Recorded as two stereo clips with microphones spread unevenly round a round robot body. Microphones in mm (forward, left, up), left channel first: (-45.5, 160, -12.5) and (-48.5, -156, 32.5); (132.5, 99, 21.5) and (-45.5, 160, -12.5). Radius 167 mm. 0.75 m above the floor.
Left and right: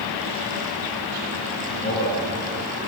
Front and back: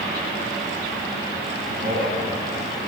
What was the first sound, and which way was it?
A man speaking, 125° left.